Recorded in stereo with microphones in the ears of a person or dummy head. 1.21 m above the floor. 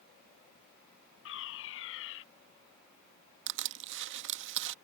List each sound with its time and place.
1.2 s a fire alarm: 75° left (ahead or behind)
3.5 s crushing: 60° right (ahead or behind)